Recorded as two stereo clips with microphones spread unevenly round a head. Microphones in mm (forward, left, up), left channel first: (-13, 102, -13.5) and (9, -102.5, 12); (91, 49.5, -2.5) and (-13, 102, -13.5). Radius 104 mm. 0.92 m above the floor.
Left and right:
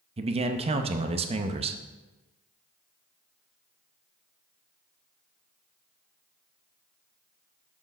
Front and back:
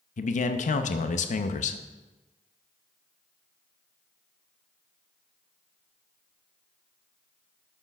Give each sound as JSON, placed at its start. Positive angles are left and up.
{"t": 0.2, "sound": "a man speaking", "azimuth_deg": -20, "distance_m": 0.6}